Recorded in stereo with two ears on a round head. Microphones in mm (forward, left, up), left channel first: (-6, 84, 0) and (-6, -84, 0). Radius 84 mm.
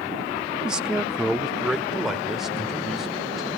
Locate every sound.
0.7 s a man speaking: 5° right (ahead or behind), 0.6 m; by 3.5 s centre (ahead or behind), 2.5 m